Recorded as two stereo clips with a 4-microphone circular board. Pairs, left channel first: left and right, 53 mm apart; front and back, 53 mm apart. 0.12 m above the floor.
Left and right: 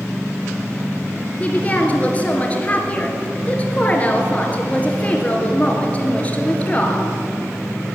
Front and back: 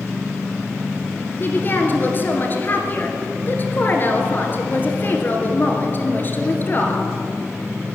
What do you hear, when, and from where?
1.4 s a woman speaking: 35° left, 2.0 m